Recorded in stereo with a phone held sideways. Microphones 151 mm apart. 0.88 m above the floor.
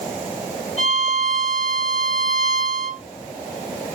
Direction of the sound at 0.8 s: 45° left (ahead or behind).